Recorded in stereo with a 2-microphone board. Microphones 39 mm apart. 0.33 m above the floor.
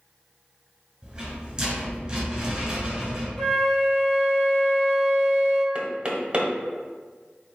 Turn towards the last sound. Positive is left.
turn(degrees=-25)  # may be behind; listen again after turning